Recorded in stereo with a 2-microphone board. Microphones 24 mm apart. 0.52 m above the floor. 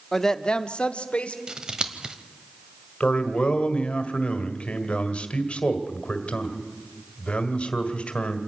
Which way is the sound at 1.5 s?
35° right (ahead or behind).